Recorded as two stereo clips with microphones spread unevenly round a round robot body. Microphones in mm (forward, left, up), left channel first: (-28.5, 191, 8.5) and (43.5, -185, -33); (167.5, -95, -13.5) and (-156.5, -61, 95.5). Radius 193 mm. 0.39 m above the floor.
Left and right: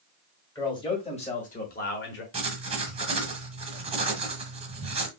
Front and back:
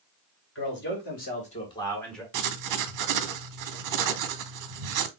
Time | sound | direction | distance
0.6 | a man speaking | 20° left | 2 m
2.3 | writing | 150° right | 0.8 m